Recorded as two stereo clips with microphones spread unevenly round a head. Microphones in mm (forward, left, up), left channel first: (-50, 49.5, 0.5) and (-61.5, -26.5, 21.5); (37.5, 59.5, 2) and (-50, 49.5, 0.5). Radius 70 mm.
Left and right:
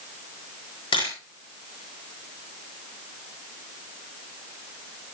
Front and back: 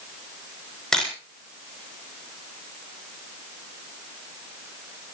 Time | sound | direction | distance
0.9 | a camera shutter | 90° left | 7.5 m